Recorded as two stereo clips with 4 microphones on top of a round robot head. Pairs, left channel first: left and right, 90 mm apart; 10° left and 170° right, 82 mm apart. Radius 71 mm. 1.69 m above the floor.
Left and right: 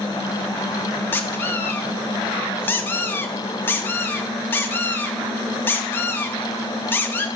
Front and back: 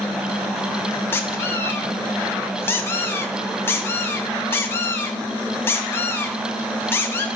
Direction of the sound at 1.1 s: 45° left.